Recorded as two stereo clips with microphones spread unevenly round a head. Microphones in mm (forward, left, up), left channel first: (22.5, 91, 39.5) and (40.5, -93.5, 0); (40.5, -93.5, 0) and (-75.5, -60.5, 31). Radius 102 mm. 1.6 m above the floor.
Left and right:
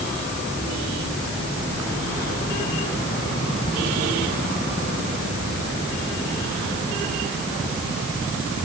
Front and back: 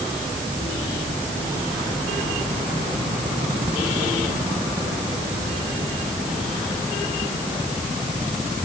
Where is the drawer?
No drawer in this recording.